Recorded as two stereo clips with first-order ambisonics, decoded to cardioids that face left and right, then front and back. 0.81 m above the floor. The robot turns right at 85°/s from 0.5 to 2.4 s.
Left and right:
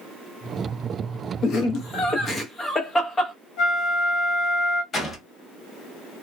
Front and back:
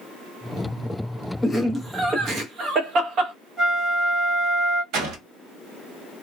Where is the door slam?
155° left, 1.0 m.